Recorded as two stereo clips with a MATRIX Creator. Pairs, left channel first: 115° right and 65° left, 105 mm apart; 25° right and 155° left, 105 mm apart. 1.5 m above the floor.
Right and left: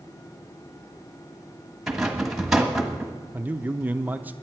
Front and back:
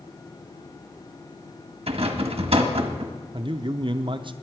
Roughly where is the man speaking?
Behind left.